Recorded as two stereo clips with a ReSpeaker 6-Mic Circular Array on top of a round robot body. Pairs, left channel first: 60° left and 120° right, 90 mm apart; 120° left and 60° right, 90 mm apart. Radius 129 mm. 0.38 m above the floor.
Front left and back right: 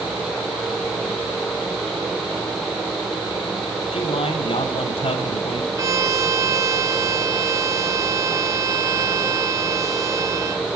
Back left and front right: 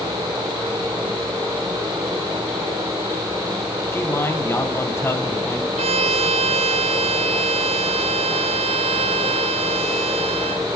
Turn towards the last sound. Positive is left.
turn(degrees=-65)